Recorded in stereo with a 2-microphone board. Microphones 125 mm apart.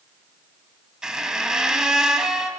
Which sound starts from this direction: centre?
A squeak, at 1.0 s.